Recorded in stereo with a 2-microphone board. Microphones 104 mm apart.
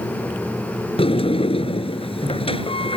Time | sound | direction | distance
1.0 | a sliding door | 70° left (ahead or behind) | ?